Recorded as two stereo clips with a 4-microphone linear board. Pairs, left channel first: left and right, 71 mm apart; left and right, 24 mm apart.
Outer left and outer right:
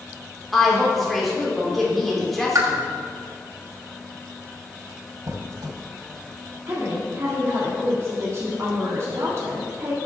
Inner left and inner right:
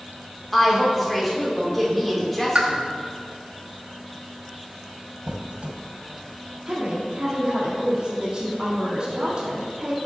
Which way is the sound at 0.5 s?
Centre (ahead or behind).